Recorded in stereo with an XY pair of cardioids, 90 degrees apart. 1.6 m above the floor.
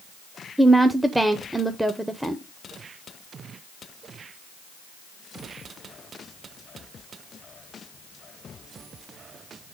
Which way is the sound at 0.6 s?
5° right.